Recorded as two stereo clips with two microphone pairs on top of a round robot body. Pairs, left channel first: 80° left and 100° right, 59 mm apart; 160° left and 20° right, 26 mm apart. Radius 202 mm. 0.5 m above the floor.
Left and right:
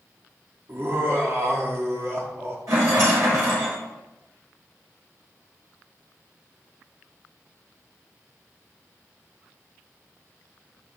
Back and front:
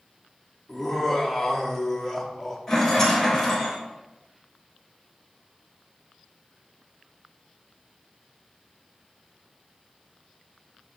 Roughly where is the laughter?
Behind right.